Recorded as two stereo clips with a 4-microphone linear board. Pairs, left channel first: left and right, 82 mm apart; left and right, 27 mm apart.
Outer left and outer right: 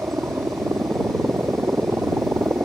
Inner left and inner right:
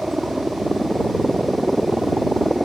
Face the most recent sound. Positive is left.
turn(degrees=-30)  # may be behind; listen again after turning